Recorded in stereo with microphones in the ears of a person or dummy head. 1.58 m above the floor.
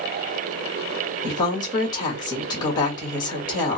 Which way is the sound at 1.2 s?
25° left (ahead or behind).